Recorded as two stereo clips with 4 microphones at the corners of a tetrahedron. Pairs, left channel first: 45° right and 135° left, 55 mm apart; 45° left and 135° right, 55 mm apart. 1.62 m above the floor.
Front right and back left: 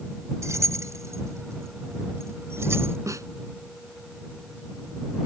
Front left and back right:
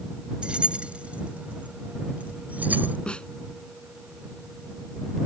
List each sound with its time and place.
0.4 s keys jangling: 155° left; by 3.0 s 170° left
3.1 s a snare drum: 115° left